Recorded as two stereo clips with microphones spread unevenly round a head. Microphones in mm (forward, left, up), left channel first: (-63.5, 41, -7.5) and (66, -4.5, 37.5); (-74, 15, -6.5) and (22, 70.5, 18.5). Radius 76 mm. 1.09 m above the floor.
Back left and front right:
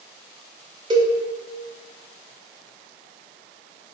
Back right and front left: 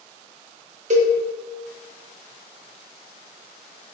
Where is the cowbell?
45° left, 0.7 m.